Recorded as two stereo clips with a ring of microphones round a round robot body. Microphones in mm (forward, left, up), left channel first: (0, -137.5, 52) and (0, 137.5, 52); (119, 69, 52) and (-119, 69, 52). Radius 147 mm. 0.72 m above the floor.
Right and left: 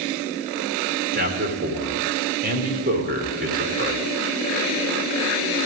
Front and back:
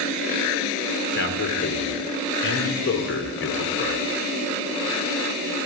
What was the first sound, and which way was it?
A man speaking, 35° left.